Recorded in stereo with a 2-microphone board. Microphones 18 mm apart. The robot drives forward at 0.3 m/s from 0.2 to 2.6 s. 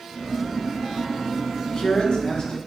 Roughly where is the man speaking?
Left.